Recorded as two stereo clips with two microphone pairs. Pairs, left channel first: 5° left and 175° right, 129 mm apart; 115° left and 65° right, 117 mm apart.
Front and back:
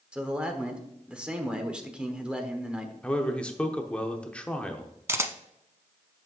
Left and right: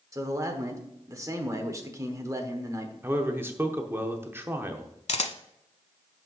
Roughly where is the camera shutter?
Behind left.